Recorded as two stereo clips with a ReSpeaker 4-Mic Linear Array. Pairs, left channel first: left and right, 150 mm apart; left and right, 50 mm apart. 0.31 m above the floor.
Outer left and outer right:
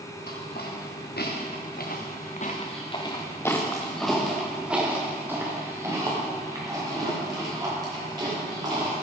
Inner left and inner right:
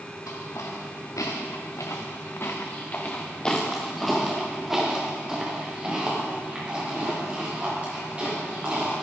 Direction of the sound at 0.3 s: 75° left (ahead or behind).